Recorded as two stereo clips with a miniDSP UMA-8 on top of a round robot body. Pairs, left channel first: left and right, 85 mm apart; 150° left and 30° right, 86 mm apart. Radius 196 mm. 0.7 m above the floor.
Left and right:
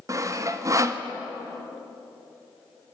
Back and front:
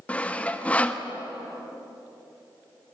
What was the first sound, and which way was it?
Sawing, 135° right.